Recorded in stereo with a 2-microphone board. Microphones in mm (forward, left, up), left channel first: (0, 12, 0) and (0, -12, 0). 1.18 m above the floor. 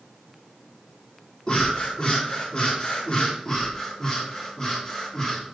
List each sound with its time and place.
1.5 s breathing: 35° left (ahead or behind), 1.9 m
3.5 s breathing: 25° left (ahead or behind), 1.7 m